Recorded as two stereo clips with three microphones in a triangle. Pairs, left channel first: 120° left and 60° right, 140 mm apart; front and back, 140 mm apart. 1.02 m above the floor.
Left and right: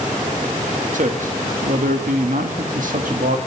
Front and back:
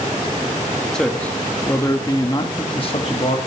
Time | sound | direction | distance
0.9 | a man speaking | 85° right | 1.8 m